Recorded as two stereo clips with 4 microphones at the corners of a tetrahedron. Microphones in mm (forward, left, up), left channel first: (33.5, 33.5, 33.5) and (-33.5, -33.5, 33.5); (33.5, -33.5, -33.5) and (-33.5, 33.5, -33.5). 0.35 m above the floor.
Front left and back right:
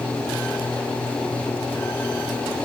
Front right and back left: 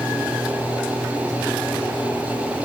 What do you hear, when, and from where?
Only background noise.